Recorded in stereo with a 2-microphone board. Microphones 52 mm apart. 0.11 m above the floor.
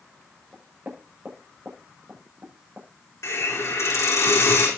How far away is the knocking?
About 7.5 m.